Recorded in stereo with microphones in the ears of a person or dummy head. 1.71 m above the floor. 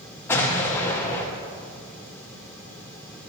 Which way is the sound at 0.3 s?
15° left (ahead or behind).